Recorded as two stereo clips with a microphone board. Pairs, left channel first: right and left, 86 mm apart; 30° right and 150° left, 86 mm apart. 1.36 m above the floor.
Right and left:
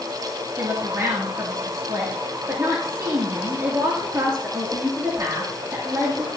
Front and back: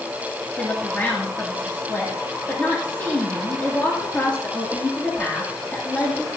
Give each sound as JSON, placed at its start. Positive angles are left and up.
{"t": 0.6, "sound": "a woman speaking", "azimuth_deg": 40, "distance_m": 2.0}